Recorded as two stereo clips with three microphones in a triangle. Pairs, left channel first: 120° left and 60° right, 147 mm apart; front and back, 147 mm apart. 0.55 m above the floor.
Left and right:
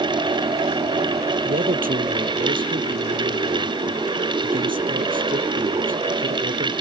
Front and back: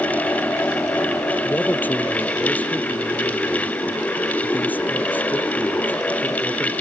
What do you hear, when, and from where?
1.4 s a man speaking: 80° right